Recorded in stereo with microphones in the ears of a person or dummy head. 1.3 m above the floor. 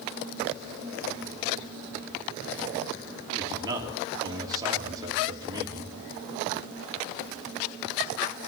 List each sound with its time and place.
3.4 s a man speaking: 20° right (ahead or behind), 3 m